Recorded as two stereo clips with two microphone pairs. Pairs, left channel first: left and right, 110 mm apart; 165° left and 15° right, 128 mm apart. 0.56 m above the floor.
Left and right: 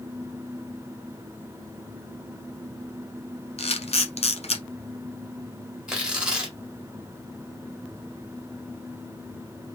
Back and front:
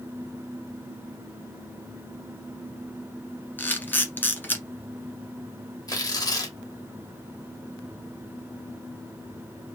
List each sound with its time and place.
3.6 s a camera shutter: 90° left, 1.1 m
5.9 s tearing paper: 165° right, 1.4 m